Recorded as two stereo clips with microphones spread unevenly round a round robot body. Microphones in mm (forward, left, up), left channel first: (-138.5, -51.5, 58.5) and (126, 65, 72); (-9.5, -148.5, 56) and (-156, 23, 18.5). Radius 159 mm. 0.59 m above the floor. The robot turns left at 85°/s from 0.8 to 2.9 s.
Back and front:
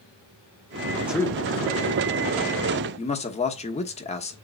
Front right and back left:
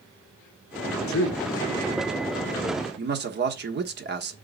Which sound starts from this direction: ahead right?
A man speaking, at 1.1 s.